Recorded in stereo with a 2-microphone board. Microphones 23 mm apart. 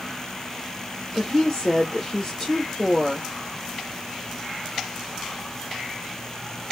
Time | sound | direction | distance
1.1 | a woman speaking | 25° left (ahead or behind) | 1.0 m